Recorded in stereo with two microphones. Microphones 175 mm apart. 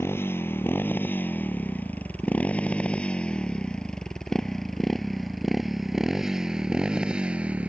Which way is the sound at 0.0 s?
15° left (ahead or behind).